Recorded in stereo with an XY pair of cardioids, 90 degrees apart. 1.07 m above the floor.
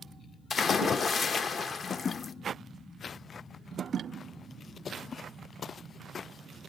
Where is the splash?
55° left, 1.0 m.